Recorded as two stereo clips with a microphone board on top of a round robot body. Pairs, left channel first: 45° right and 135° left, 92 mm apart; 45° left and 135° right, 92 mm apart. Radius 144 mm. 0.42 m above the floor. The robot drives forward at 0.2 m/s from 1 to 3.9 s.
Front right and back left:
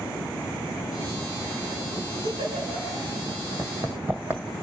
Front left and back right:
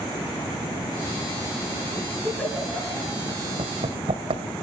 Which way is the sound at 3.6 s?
150° right.